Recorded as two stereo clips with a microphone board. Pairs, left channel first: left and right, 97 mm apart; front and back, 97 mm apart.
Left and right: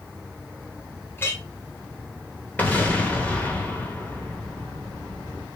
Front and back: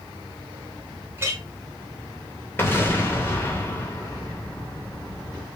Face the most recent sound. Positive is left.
turn(degrees=35)